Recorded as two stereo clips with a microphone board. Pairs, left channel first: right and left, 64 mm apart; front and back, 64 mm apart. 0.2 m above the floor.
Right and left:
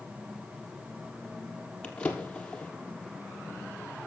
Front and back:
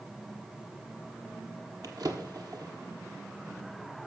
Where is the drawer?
160° right, 1.4 m.